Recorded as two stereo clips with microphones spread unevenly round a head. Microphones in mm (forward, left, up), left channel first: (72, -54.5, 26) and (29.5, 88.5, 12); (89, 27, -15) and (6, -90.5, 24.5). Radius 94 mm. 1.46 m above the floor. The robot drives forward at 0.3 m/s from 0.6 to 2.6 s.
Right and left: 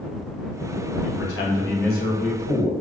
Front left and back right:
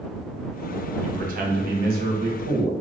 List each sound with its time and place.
1.0 s a man speaking: 90° right, 0.6 m; by 2.7 s 130° right, 0.7 m